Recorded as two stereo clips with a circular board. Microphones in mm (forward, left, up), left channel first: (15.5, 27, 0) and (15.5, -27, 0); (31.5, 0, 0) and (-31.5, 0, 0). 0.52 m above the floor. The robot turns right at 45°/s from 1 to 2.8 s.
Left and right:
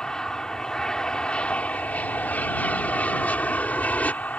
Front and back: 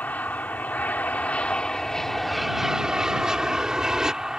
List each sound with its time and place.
0.0 s an aircraft: 30° left; by 4.4 s 110° left